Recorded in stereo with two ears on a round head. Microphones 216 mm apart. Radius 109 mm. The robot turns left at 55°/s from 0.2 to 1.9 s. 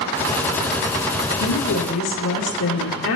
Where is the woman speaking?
75° left (ahead or behind), 1.7 m; by 3.2 s 55° left (ahead or behind), 1.7 m.